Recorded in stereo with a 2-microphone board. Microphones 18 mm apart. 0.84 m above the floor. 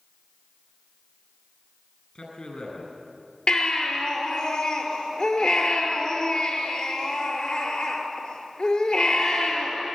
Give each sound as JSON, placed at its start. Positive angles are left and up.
{"t": 2.1, "sound": "a man speaking", "side_deg": 50, "distance_m": 9.5}
{"t": 3.5, "sound": "a baby crying", "side_deg": 55, "distance_m": 6.0}